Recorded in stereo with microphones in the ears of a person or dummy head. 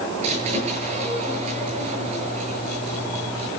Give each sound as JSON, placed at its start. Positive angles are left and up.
{"t": 0.2, "sound": "a squeak", "side_deg": -40, "distance_m": 7.5}